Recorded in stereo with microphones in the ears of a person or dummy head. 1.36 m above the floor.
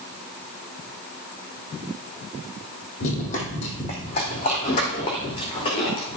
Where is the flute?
I don't hear a flute.